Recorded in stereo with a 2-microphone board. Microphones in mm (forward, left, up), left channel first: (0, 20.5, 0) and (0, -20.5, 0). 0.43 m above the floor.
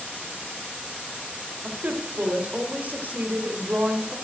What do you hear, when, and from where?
1.6 s a woman speaking: 45° right (ahead or behind), 1.6 m